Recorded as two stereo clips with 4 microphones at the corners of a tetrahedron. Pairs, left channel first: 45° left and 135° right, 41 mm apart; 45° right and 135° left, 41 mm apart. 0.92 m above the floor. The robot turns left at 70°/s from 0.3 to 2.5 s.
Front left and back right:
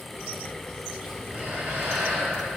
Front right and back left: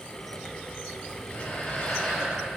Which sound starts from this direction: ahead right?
Breathing, at 1.0 s.